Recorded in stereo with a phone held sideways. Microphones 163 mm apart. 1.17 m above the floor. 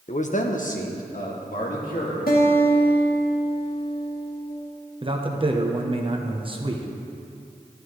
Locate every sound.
0.1 s a man speaking: 45° left (ahead or behind), 0.6 m; by 2.2 s 55° left (ahead or behind), 2.5 m
2.3 s a guitar: 65° left (ahead or behind), 1.5 m
5.0 s a man speaking: 30° right (ahead or behind), 0.8 m